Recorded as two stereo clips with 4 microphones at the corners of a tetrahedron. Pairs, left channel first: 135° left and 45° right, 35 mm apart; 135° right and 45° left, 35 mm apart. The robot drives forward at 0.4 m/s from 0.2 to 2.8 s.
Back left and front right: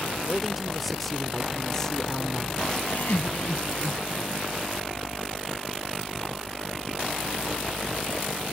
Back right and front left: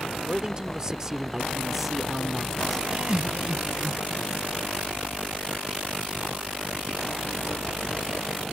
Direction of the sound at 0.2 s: 35° left.